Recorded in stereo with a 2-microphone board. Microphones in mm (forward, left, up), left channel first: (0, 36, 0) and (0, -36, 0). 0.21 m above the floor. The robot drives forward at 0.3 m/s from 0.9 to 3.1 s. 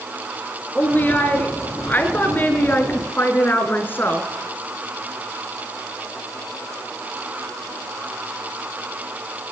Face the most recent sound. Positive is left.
turn(degrees=30)  # may be behind; listen again after turning